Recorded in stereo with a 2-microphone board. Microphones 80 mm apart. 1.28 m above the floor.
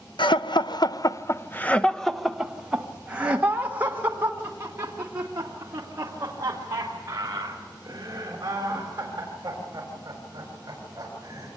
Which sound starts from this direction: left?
Laughter, at 0.2 s.